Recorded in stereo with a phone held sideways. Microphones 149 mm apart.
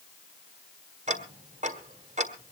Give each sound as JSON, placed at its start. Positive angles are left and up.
{"t": 1.1, "sound": "ticking", "side_deg": -50, "distance_m": 1.4}